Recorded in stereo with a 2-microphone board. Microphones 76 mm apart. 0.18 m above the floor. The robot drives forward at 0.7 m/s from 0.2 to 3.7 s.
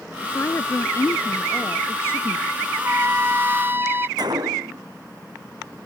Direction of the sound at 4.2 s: 65° right (ahead or behind).